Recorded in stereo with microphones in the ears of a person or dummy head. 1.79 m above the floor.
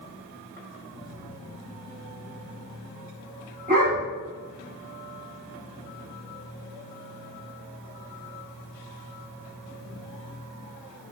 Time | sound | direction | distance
3.7 | a dog barking | 40° right (ahead or behind) | 1.7 m